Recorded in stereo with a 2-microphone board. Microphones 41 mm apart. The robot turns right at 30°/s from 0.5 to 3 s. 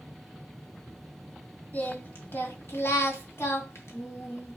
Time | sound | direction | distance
1.7 | singing | 45° left | 2.5 m